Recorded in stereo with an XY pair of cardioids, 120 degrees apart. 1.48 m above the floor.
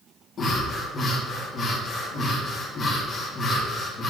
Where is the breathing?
45° left, 3.5 m.